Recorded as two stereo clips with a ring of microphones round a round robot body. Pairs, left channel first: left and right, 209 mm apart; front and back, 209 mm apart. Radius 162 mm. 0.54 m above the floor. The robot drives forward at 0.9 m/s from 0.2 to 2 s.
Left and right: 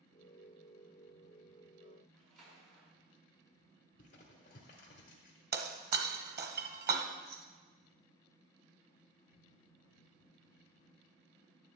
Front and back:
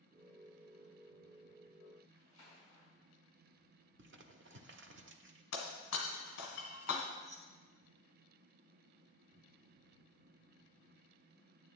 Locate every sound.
2.1 s a splash: 105° right, 5 m
4.0 s crumpling: 150° left, 0.9 m
5.5 s breaking glass: 50° right, 1.3 m
7.2 s keys jangling: 125° right, 0.7 m